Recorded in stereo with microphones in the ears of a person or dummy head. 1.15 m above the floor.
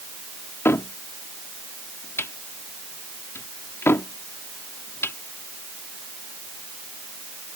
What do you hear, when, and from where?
0.7 s a cupboard door: 15° left (ahead or behind)